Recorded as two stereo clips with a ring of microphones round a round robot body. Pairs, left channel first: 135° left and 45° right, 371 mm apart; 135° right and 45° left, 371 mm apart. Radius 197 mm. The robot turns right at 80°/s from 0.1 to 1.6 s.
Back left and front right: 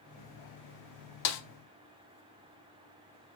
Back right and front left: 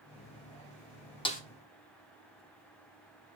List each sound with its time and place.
1.2 s a snare drum: 150° left, 1.0 m; by 1.4 s 160° left, 1.0 m